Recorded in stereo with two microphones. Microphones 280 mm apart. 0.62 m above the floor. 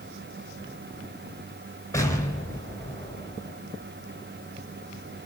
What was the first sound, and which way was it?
An explosion, 10° left (ahead or behind).